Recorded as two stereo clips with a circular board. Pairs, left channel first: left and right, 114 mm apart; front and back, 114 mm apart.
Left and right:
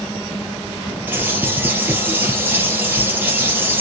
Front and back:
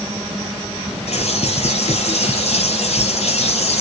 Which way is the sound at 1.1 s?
20° right.